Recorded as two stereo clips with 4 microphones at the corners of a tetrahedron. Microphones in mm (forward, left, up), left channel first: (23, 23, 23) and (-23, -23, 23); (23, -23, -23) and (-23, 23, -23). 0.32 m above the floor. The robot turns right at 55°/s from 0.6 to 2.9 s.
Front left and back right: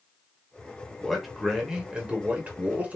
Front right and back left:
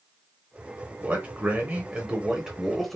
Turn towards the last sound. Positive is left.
turn(degrees=-130)